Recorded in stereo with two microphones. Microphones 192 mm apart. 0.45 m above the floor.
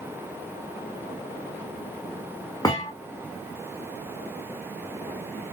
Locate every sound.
2.6 s a thud: 15° left (ahead or behind), 4 m